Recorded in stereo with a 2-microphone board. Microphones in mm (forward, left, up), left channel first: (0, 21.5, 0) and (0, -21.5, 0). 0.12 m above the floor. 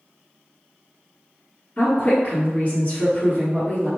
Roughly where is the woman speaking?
Left.